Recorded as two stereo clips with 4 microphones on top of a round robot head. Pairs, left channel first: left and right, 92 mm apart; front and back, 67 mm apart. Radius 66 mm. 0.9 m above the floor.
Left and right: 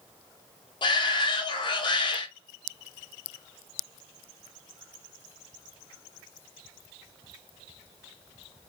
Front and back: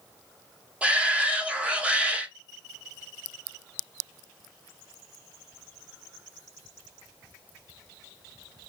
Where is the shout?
115° left, 1.0 m.